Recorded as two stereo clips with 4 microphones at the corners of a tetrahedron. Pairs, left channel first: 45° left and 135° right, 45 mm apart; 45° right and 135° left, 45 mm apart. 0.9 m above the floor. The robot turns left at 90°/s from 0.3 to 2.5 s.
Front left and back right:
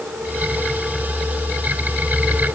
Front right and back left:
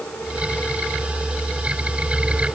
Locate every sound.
Only background noise.